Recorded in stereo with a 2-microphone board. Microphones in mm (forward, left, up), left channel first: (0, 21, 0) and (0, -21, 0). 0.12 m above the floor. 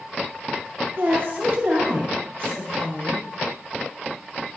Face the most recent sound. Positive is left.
turn(degrees=-60)  # may be behind; listen again after turning